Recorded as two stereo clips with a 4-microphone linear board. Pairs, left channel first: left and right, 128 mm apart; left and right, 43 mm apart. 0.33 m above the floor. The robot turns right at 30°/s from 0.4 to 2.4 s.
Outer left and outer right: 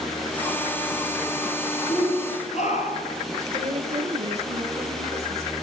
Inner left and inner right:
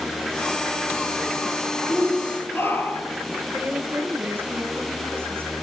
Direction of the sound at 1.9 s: 50° left (ahead or behind).